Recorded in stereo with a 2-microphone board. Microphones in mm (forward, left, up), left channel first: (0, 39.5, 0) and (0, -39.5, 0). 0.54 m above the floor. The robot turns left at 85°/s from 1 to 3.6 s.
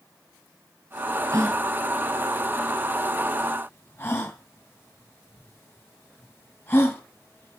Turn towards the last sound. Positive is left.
turn(degrees=25)  # may be behind; listen again after turning